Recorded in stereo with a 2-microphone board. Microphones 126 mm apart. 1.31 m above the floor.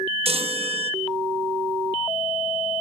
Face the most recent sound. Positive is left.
turn(degrees=-55)  # may be behind; listen again after turning